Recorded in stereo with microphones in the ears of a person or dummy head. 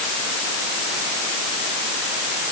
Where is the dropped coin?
No dropped coin in this recording.